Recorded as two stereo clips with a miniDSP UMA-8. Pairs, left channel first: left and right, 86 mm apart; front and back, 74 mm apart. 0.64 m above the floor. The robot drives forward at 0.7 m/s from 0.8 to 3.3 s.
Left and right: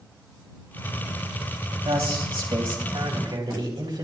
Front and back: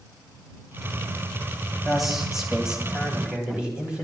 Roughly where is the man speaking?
Right.